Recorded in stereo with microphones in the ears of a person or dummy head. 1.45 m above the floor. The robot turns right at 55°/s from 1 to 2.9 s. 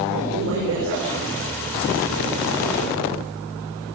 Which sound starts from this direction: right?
A woman speaking, at 0.1 s.